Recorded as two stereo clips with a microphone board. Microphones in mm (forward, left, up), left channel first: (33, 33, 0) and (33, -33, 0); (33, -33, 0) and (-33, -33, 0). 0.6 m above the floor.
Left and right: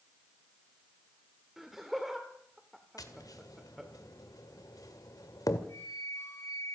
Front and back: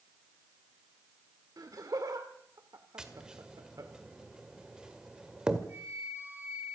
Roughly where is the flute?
Behind left.